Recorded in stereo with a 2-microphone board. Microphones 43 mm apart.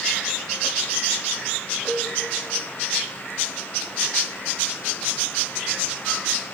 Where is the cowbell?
30° right (ahead or behind), 3.5 m.